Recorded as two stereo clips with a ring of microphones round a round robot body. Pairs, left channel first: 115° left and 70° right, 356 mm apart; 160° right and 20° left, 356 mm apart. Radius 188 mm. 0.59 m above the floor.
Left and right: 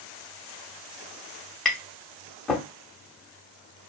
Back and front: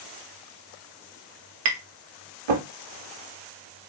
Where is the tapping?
25° left, 0.6 m.